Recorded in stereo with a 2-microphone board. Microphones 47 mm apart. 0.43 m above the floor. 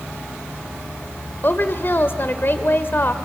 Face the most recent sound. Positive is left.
turn(degrees=50)  # may be behind; listen again after turning